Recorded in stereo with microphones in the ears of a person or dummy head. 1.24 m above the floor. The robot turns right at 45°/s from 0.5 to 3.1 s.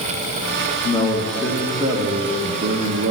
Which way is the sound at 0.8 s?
145° left.